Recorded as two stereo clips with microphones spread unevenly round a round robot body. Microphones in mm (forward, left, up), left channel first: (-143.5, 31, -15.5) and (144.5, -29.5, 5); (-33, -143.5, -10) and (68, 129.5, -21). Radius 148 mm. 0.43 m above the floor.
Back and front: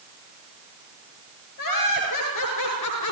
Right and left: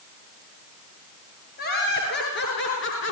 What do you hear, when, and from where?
1.6 s laughter: 170° right, 7.5 m; by 3.1 s 160° right, 5.5 m